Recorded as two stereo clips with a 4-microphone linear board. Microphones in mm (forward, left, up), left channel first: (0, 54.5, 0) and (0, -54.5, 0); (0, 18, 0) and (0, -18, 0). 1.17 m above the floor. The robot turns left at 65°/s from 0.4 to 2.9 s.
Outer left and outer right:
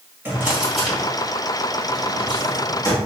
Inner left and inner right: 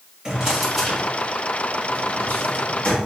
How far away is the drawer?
About 1.7 m.